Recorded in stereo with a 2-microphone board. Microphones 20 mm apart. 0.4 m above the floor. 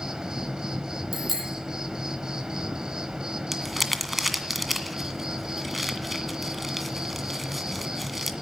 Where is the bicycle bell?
10° right (ahead or behind), 9.5 m.